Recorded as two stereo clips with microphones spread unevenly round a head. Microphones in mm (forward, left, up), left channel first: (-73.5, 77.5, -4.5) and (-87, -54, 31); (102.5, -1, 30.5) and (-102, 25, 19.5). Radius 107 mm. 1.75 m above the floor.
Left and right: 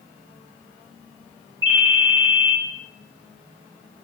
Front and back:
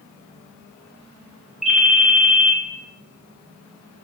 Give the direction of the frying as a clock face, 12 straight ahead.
No frying in this recording.